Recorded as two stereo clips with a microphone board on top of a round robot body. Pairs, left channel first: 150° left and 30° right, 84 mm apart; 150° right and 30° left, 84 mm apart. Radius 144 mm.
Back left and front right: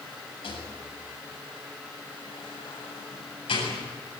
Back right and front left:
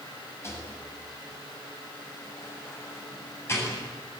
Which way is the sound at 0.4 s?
150° left.